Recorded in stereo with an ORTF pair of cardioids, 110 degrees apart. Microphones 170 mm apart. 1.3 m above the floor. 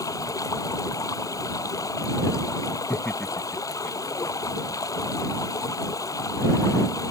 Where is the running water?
20° left.